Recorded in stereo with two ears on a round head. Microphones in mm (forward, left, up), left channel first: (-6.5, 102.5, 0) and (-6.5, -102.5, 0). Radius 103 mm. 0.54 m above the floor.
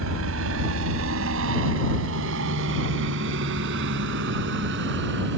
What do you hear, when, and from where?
0.0 s a helicopter: 65° right (ahead or behind); by 5.4 s 55° right (ahead or behind)